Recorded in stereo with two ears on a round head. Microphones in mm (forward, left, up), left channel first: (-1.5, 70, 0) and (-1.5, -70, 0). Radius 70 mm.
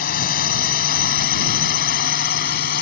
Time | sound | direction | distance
0.0 | a drone | 60° left (ahead or behind) | ?